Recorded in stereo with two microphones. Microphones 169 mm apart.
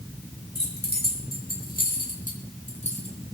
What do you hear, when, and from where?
0.6 s keys jangling: 80° left, 4 m; by 3.3 s 35° left (ahead or behind), 4 m